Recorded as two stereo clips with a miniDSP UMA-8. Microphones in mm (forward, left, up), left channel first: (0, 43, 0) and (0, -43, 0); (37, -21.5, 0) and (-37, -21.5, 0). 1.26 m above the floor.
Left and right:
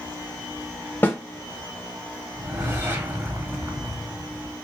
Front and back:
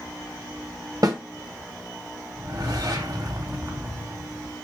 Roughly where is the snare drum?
Behind left.